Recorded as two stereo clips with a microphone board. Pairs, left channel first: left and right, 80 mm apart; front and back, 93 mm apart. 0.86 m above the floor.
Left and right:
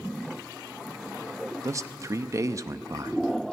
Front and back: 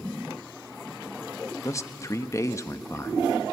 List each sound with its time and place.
1.6 s a man speaking: 50° right, 0.8 m